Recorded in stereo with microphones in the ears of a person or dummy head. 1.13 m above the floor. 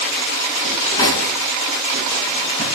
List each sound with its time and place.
0.7 s cutlery clinking: 25° left (ahead or behind), 5 m